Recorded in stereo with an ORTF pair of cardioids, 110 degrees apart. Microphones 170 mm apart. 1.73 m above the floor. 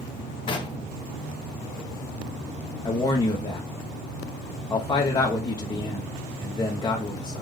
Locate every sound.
0.5 s knocking: 30° left, 1.1 m
2.9 s a man speaking: 25° left, 0.9 m